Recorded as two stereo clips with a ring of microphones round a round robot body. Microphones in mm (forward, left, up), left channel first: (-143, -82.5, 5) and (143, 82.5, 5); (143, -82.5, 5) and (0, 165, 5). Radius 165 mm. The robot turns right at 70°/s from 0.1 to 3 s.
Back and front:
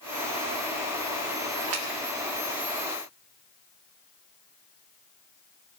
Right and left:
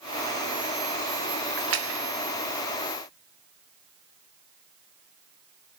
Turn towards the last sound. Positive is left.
turn(degrees=165)